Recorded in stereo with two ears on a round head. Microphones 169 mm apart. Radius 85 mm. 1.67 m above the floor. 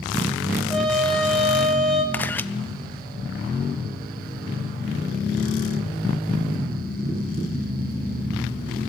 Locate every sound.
0.7 s a trumpet: centre (ahead or behind), 7.5 m
2.1 s a camera shutter: 10° left (ahead or behind), 1.2 m